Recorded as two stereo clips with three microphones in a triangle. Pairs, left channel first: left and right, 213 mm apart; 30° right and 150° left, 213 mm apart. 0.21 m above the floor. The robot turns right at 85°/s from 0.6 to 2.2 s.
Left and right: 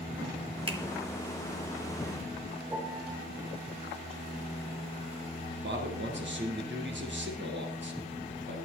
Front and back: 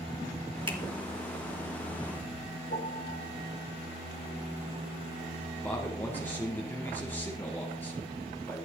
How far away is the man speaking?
About 3.5 m.